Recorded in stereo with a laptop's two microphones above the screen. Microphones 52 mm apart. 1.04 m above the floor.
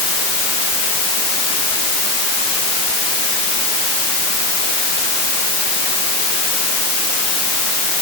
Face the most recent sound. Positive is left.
No sound to turn to.